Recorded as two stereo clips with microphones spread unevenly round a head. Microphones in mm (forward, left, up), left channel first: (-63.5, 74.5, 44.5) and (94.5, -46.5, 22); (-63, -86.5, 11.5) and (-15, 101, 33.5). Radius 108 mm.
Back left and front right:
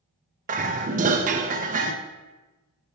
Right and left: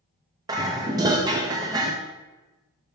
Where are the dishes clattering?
10° left, 0.7 m.